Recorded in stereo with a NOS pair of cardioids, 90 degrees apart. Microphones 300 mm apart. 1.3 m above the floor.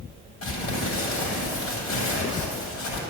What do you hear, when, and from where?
0.4 s crumpling: 70° left, 7 m